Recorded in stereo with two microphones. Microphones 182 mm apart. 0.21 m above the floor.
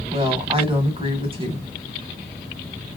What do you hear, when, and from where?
0.1 s a woman speaking: 30° right (ahead or behind), 1.1 m